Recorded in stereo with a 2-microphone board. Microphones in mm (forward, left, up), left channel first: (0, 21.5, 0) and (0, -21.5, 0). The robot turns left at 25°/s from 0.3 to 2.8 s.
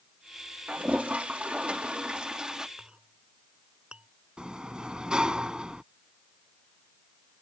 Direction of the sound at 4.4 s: 20° right (ahead or behind).